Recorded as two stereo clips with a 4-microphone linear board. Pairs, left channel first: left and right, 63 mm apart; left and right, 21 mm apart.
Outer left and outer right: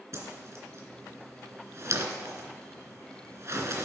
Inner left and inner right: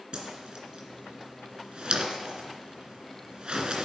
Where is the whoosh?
45° right (ahead or behind), 2.5 m.